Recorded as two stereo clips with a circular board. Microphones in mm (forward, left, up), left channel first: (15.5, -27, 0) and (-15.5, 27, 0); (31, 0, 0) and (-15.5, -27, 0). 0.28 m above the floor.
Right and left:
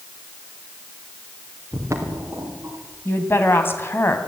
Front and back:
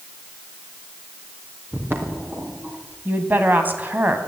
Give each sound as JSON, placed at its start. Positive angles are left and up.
{"t": 1.7, "sound": "footsteps", "azimuth_deg": 160, "distance_m": 4.0}
{"t": 3.0, "sound": "a woman speaking", "azimuth_deg": -100, "distance_m": 2.5}